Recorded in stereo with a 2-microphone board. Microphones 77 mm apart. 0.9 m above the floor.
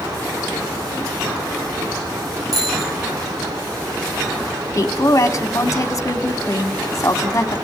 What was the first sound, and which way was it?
A bicycle bell, 45° right (ahead or behind).